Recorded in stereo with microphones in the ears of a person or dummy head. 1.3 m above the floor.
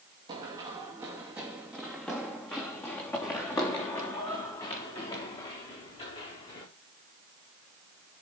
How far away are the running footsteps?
About 2.5 m.